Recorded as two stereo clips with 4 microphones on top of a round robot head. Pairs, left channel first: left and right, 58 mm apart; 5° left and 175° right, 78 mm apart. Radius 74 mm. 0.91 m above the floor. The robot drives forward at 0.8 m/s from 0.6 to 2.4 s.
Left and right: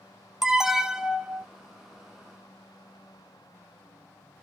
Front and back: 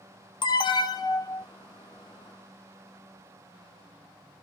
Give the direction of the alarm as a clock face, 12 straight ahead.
12 o'clock.